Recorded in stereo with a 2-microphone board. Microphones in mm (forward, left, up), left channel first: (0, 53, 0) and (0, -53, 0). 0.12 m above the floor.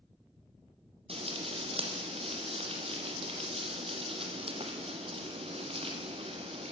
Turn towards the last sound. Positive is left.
turn(degrees=-55)  # may be behind; listen again after turning